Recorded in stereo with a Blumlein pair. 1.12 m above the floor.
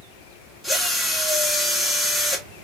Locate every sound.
0.6 s a drill: straight ahead, 1.4 m